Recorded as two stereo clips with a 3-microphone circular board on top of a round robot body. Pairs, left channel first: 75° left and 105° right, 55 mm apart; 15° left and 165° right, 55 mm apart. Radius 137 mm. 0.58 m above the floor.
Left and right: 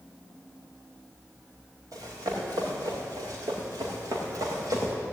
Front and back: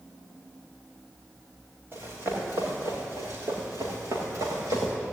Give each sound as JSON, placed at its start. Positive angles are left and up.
{"t": 1.9, "sound": "running footsteps", "azimuth_deg": -115, "distance_m": 6.0}